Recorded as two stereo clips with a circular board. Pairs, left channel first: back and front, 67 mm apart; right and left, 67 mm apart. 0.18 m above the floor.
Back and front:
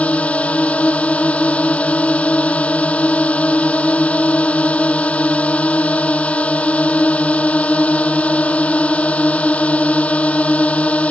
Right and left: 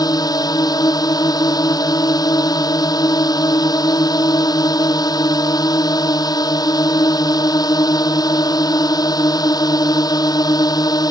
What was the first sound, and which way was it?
A drone, 110° right.